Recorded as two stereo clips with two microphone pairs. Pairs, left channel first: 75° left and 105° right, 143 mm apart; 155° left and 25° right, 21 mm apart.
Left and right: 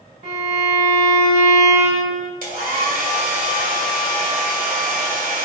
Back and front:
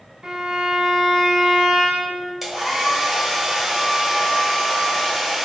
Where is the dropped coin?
No dropped coin in this recording.